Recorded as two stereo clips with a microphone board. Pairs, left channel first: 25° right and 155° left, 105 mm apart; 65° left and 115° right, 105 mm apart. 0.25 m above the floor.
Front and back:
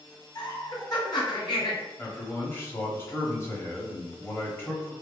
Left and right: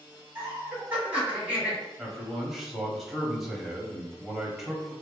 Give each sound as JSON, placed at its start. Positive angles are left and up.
{"t": 0.3, "sound": "laughter", "azimuth_deg": -40, "distance_m": 1.9}
{"t": 2.0, "sound": "a man speaking", "azimuth_deg": -25, "distance_m": 1.1}